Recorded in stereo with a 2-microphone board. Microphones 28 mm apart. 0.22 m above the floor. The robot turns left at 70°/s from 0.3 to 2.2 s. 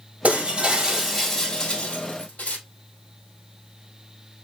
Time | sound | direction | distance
0.2 | breaking glass | 115° right | 2 m